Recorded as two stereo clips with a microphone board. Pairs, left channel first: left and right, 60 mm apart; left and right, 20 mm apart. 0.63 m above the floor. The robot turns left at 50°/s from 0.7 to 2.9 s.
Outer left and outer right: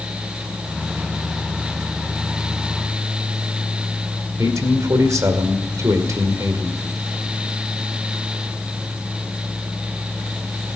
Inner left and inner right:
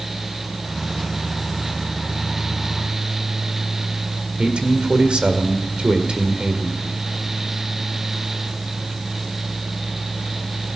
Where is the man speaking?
65° right (ahead or behind), 1.9 m.